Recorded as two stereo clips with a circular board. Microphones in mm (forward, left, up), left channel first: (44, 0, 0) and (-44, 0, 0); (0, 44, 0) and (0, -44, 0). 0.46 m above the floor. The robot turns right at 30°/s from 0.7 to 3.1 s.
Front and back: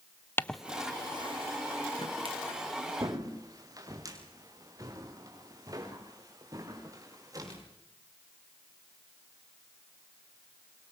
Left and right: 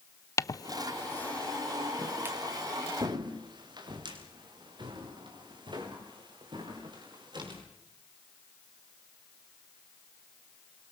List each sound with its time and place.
0.4 s footsteps: 55° left, 0.5 m; by 7.6 s 125° right, 8 m